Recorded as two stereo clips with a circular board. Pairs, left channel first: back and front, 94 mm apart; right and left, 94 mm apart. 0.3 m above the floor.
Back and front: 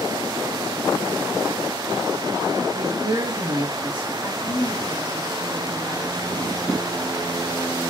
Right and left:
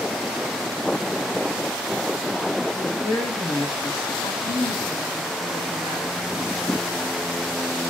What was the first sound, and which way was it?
A man speaking, 30° right.